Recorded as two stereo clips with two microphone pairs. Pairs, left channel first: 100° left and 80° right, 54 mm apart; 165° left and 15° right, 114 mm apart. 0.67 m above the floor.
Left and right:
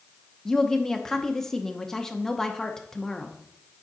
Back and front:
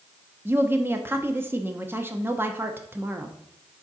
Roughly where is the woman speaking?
Ahead left.